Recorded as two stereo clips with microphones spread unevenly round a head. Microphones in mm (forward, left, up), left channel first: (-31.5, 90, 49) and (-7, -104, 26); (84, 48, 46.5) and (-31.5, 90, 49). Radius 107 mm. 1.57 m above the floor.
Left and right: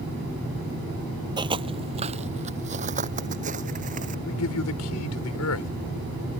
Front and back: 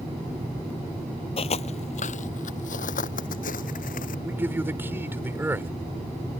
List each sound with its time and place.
1.4 s footsteps: 15° right; by 4.2 s 25° right
4.2 s a man speaking: 90° left